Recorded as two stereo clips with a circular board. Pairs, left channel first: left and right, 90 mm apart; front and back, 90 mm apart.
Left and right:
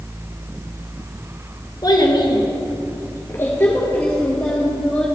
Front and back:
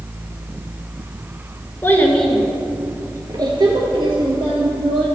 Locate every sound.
1.8 s a child speaking: 60° left, 1.1 m; by 5.1 s 170° left, 2.5 m